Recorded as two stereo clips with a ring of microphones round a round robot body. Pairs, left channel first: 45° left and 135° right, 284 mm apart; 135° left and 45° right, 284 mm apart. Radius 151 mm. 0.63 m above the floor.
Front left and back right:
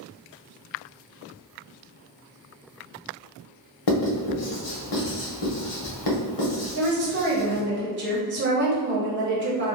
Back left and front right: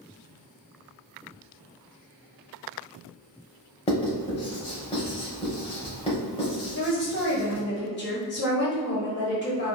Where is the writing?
65° left, 0.9 m.